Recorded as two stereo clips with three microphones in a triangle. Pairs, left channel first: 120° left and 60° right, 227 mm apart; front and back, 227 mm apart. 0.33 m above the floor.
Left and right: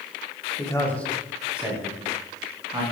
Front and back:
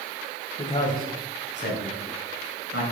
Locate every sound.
0.6 s a man speaking: 55° left, 1.3 m; by 2.8 s 15° left, 3 m